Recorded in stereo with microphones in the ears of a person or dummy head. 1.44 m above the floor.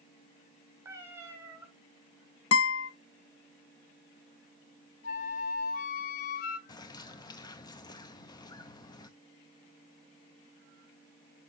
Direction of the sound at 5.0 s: 45° left (ahead or behind).